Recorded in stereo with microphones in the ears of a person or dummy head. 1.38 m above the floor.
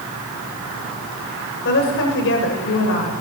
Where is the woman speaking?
55° left (ahead or behind), 7 m; by 3.2 s 70° left (ahead or behind), 7 m.